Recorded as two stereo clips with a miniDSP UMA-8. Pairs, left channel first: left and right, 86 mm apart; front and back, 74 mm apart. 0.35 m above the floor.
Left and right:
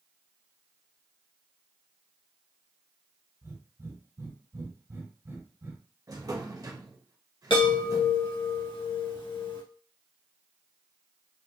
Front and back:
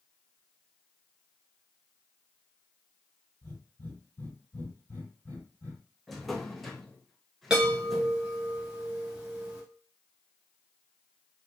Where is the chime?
100° left, 1.7 m.